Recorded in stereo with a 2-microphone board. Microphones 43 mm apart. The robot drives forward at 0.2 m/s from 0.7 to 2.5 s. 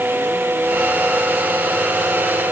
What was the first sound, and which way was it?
Only background noise.